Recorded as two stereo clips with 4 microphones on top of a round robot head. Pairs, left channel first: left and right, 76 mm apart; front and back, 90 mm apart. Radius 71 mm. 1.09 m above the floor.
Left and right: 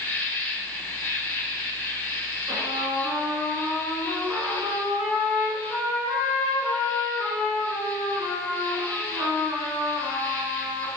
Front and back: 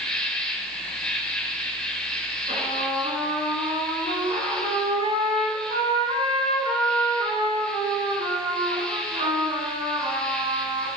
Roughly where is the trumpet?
Behind.